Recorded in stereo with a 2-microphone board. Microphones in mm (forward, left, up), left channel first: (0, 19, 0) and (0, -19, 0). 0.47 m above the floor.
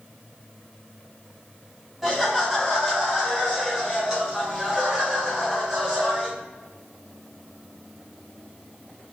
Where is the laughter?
5° right (ahead or behind), 3 m; by 6.3 s 20° right (ahead or behind), 5.5 m.